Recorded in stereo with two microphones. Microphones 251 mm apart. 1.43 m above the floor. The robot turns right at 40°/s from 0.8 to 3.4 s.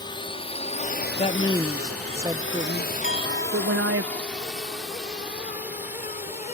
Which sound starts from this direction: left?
A clink, at 3.0 s.